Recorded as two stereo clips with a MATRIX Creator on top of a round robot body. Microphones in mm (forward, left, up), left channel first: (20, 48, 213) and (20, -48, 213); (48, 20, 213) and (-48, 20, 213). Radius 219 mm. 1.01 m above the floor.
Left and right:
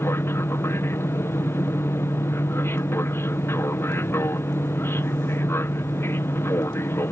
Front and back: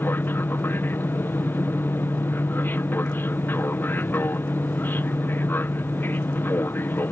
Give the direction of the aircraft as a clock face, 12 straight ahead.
10 o'clock.